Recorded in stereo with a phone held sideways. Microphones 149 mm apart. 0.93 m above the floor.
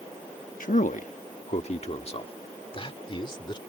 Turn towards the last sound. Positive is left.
turn(degrees=35)  # may be behind; listen again after turning